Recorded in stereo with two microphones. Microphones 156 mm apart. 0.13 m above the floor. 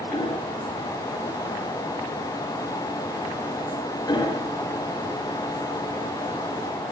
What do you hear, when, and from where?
0.1 s hammering: 25° left (ahead or behind), 7.5 m